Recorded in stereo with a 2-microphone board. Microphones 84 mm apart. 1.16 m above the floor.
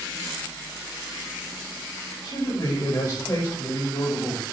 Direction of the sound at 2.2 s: 45° left (ahead or behind).